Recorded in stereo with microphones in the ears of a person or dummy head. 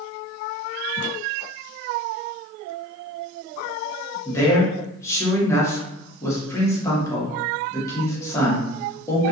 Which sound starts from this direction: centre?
A man speaking, at 4.2 s.